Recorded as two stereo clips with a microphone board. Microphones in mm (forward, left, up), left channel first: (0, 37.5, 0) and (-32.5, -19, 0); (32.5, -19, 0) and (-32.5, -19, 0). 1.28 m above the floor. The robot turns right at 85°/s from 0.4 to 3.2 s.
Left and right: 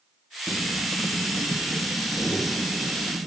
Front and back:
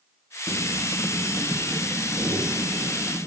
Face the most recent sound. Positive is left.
turn(degrees=-130)